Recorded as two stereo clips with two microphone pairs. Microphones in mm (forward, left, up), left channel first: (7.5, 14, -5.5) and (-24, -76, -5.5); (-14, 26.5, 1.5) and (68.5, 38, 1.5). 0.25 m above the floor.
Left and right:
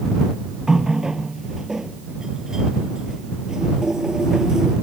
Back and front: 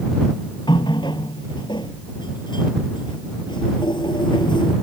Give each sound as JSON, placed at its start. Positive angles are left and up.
{"t": 0.7, "sound": "a running tap", "azimuth_deg": 170}